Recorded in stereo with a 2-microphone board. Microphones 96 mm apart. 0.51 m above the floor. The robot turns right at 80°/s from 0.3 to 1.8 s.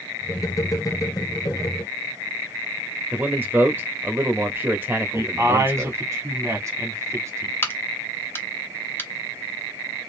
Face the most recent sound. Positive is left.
turn(degrees=25)  # may be behind; listen again after turning